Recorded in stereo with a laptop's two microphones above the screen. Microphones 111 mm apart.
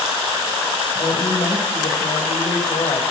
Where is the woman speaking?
60° left (ahead or behind), 4.5 m.